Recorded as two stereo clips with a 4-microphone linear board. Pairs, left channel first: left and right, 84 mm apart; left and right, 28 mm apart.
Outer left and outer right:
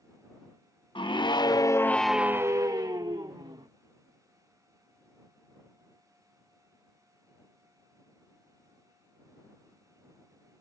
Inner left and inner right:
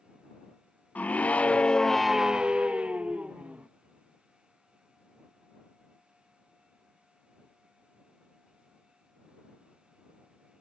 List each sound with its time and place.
0.9 s a scream: 75° left (ahead or behind); by 3.7 s 60° right (ahead or behind)